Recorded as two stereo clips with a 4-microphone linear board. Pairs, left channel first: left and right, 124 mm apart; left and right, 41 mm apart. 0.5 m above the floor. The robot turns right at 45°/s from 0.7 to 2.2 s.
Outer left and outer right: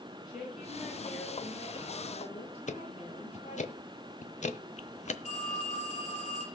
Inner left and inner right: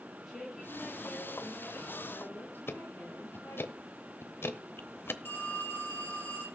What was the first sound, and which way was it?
A woman speaking, straight ahead.